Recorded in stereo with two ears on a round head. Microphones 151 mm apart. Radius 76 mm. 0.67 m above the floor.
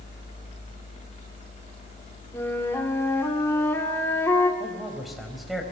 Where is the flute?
15° left (ahead or behind), 2 m.